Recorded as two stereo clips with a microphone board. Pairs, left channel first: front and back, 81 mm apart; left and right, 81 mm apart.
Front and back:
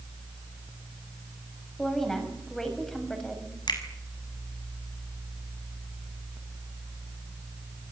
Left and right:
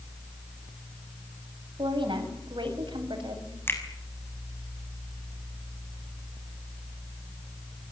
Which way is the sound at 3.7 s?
30° left.